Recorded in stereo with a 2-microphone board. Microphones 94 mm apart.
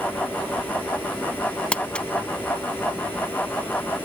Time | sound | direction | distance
1.7 | crumpling | 10° left (ahead or behind) | 0.7 m